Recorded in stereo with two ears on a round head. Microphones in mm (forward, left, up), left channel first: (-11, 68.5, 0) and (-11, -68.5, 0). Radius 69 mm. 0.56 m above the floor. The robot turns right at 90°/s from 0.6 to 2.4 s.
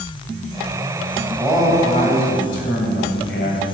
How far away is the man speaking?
About 3 m.